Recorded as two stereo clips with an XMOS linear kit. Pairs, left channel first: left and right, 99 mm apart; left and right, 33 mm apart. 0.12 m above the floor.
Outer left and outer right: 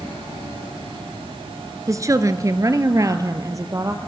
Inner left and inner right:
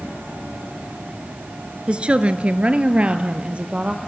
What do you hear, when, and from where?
1.9 s a woman speaking: 35° right (ahead or behind), 1.3 m